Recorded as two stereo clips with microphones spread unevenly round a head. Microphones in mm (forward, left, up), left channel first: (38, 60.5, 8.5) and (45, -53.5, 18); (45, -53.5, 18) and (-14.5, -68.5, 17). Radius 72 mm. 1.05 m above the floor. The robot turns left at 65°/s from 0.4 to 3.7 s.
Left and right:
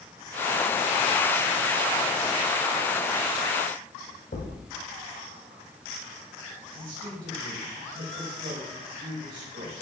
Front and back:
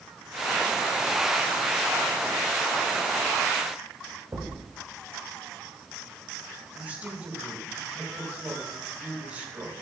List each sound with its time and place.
4.3 s a thud: 130° left, 2 m
6.7 s a woman speaking: 105° right, 5 m